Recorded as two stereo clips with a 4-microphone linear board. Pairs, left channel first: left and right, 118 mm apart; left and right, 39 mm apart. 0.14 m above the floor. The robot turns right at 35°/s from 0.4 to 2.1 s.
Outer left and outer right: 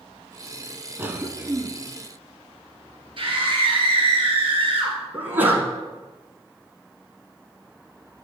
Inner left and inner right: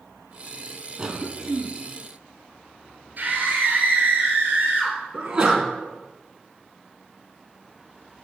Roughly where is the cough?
Right.